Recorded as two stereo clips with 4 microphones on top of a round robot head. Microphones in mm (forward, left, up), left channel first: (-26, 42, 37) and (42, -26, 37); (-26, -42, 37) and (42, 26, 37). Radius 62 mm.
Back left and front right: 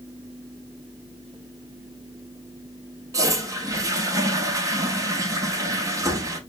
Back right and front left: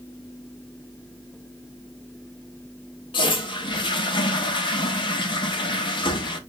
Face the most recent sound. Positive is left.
turn(degrees=-100)